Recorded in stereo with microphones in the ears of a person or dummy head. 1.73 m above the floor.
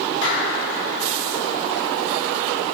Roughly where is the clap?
Left.